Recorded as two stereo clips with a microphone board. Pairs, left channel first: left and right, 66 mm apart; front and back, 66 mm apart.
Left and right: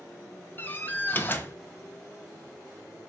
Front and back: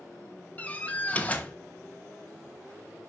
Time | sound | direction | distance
0.6 | a door slam | 55° left | 0.9 m